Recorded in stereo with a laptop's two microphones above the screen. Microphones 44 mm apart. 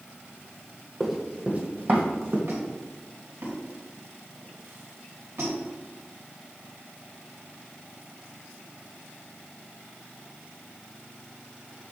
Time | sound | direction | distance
1.0 | running footsteps | centre (ahead or behind) | 1.5 m
2.5 | a squeak | 85° right | 3 m